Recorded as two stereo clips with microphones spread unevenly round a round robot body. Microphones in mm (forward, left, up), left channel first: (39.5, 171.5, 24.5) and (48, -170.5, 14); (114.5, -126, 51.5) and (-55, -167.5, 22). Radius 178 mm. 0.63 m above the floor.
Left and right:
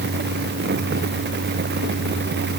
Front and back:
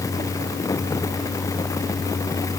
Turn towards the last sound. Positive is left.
No sound to turn to.